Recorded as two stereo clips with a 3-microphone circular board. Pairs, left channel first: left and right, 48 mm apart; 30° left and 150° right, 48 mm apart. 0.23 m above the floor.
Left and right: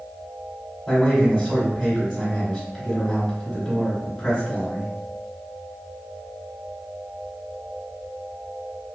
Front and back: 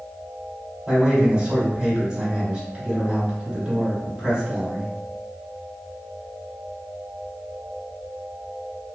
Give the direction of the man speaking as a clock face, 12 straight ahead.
6 o'clock.